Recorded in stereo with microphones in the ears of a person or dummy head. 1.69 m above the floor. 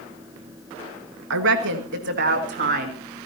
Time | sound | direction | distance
1.3 | a woman speaking | 70° right (ahead or behind) | 1.9 m